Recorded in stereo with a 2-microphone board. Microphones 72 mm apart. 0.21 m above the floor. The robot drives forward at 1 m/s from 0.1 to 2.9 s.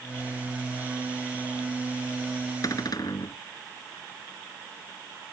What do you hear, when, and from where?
2.6 s a cupboard door: 55° left (ahead or behind); by 3.4 s 60° left (ahead or behind)